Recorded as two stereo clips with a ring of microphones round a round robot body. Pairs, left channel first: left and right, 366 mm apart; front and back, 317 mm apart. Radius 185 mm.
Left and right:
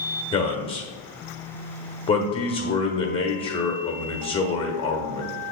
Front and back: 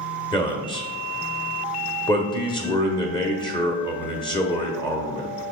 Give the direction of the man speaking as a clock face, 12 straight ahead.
11 o'clock.